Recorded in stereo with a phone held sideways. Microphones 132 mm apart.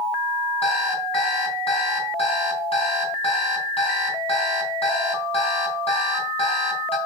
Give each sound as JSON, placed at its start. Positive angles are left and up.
{"t": 0.6, "sound": "an alarm clock", "side_deg": 45, "distance_m": 4.0}